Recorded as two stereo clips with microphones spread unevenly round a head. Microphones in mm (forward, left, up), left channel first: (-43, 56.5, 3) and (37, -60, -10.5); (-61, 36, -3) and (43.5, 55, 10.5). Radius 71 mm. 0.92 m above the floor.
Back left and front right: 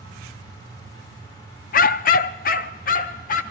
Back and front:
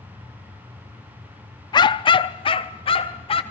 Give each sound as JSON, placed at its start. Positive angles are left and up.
{"t": 1.7, "sound": "a dog barking", "azimuth_deg": 140, "distance_m": 0.6}